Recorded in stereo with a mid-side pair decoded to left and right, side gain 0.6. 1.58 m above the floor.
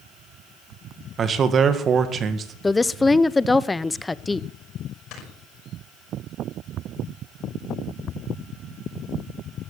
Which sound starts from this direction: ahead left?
Snoring, at 5.1 s.